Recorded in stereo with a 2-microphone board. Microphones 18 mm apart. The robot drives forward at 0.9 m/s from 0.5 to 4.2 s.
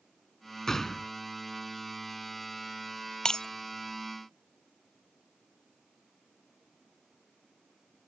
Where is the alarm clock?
I don't hear an alarm clock.